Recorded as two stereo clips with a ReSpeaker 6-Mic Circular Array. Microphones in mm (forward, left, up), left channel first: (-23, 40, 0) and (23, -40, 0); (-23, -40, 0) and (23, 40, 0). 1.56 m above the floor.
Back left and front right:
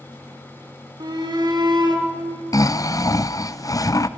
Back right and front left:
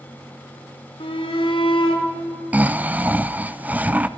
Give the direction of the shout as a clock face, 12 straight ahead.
3 o'clock.